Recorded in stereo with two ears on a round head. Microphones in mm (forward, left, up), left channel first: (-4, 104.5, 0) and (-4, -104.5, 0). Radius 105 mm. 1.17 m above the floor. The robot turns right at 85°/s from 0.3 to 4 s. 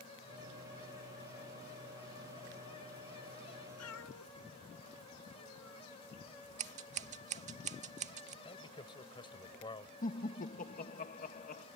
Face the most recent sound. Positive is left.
turn(degrees=35)  # may be behind; listen again after turning